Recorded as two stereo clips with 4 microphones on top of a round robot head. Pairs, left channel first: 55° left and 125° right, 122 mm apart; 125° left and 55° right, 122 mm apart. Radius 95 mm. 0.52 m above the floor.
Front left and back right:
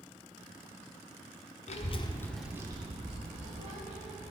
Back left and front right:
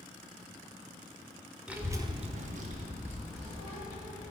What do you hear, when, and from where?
1.7 s a child speaking: 25° left, 0.8 m; by 4.2 s 100° right, 2 m